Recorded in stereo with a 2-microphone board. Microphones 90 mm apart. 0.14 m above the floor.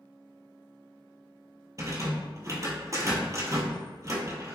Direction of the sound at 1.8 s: 35° right (ahead or behind).